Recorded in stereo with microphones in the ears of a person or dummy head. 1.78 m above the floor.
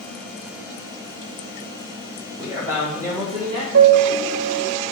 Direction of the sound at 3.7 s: 70° right (ahead or behind).